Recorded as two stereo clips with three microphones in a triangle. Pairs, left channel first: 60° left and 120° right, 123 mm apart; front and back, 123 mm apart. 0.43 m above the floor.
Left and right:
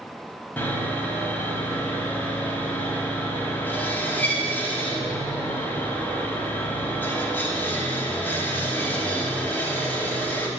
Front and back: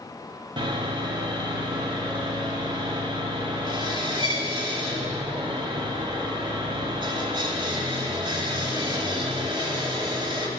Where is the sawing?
135° left, 0.9 m.